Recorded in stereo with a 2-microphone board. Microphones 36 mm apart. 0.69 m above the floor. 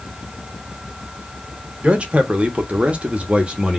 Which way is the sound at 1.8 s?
35° right (ahead or behind).